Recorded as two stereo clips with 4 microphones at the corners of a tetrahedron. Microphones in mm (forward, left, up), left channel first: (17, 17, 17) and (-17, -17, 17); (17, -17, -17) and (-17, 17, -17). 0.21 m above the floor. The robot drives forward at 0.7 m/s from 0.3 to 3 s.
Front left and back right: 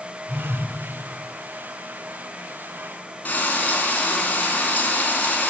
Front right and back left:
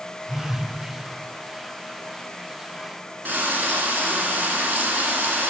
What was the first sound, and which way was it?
A phone buzzing, 40° right.